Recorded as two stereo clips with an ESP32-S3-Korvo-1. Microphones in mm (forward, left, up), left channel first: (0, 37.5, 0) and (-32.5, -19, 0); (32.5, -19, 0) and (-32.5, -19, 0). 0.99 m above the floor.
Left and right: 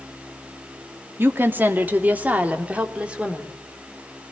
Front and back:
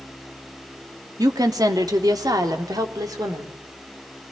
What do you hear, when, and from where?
1.2 s a woman speaking: 175° right, 2 m; by 3.6 s 165° left, 3.5 m